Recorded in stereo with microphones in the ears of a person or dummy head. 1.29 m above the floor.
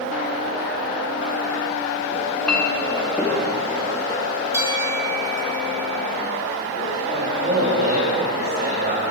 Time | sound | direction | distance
2.1 | a clink | 5° left (ahead or behind) | 1.3 m
4.5 | a bell | 10° right (ahead or behind) | 1.8 m
7.1 | a man speaking | 55° right (ahead or behind) | 2.5 m